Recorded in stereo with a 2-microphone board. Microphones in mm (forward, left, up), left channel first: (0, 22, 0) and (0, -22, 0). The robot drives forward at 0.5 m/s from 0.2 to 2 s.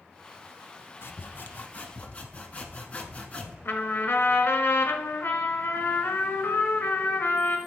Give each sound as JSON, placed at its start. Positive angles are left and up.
{"t": 1.0, "sound": "sawing", "side_deg": 60, "distance_m": 0.5}
{"t": 3.6, "sound": "a trumpet", "side_deg": 70, "distance_m": 1.0}